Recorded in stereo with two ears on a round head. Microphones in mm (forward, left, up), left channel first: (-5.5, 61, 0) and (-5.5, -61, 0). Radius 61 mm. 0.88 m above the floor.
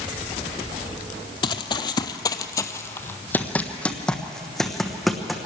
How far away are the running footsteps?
About 1.0 m.